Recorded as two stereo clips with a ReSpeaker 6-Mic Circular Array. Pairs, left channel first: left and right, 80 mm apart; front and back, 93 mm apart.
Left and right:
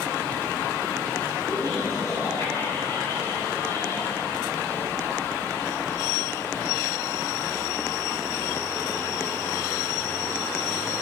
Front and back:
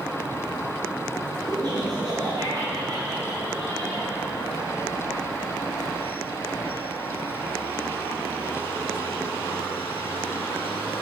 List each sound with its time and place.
1.5 s laughter: 140° left, 3.5 m